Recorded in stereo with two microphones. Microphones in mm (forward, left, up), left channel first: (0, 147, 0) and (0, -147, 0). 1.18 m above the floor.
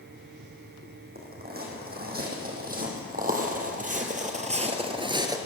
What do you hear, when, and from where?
1.1 s footsteps: 30° right (ahead or behind), 4 m; by 5.4 s 10° right (ahead or behind), 1.2 m